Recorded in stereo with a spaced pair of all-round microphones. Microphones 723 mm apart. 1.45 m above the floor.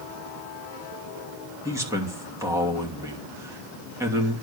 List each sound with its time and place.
1.6 s a man speaking: 5° right (ahead or behind), 3 m